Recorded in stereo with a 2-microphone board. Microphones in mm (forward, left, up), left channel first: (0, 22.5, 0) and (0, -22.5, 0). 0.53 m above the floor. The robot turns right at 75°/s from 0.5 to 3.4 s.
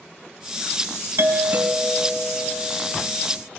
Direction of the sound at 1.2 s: 65° right.